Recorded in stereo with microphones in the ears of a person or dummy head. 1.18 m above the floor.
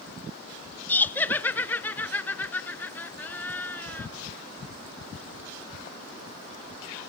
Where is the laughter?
5° left (ahead or behind), 0.7 m.